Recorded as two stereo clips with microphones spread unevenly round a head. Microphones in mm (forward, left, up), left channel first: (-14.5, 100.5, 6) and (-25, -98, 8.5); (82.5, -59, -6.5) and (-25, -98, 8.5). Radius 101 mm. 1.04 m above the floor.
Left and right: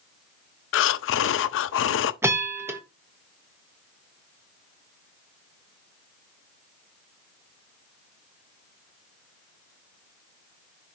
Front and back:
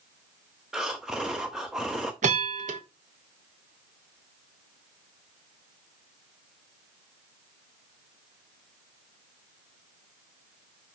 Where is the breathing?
115° left, 0.5 m.